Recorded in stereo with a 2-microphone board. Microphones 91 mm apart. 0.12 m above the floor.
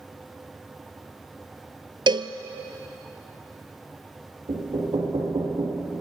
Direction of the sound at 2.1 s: 60° right (ahead or behind).